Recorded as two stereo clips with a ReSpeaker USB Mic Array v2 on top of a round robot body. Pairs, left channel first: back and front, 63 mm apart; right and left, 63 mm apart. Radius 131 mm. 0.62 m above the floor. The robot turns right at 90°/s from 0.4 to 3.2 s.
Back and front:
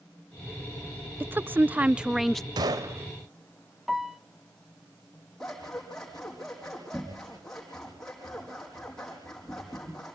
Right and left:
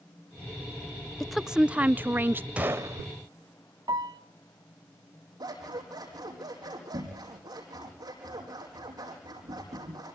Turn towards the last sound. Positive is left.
turn(degrees=95)